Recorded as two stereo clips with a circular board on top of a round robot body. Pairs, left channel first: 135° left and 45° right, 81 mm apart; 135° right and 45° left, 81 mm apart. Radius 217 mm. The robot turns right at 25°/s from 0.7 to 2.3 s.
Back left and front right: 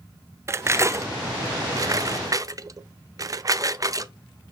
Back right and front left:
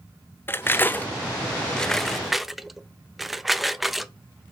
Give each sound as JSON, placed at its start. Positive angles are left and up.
{"t": 0.5, "sound": "cutlery clinking", "azimuth_deg": -80, "distance_m": 0.5}